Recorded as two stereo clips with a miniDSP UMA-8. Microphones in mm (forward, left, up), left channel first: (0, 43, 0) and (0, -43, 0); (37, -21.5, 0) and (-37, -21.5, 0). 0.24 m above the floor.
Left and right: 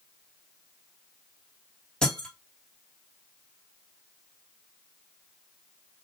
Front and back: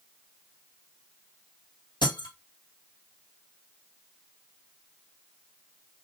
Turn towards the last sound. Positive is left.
turn(degrees=10)